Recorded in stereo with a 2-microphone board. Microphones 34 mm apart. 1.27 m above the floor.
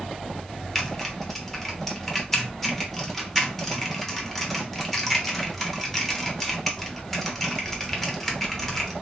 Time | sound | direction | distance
0.8 | typing on a keyboard | 5° left (ahead or behind) | 0.7 m